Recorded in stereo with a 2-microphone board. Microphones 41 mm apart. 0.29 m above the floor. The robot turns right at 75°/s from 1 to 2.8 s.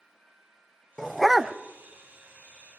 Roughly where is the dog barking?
Behind.